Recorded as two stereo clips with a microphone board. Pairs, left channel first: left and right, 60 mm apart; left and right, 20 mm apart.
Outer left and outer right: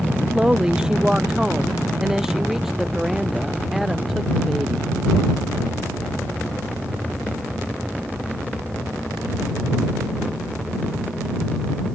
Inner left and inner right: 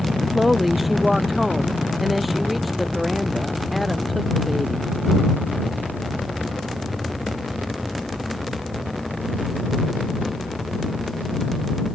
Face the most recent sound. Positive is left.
turn(degrees=0)  # may be behind; listen again after turning